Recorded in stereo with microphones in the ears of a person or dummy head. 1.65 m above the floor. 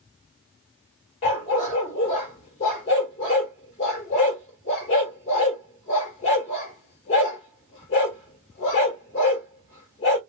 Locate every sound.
1.2 s a dog barking: 25° left (ahead or behind), 1.5 m